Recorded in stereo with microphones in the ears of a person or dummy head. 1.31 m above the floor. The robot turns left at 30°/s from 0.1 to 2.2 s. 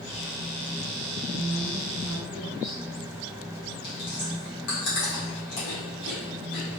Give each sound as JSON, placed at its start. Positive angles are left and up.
{"t": 1.3, "sound": "a woman speaking", "side_deg": -35, "distance_m": 2.0}
{"t": 3.8, "sound": "chewing", "side_deg": 50, "distance_m": 1.8}